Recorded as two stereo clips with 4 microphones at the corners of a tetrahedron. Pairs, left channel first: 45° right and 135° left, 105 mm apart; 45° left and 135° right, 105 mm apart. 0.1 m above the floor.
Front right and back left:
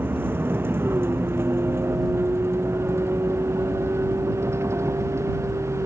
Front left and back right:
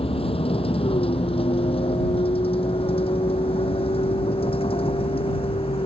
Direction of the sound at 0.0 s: 65° left.